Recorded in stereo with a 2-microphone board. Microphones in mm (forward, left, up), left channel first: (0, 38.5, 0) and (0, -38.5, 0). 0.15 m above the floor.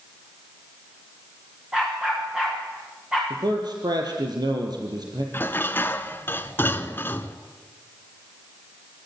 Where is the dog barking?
5° right (ahead or behind), 8.5 m.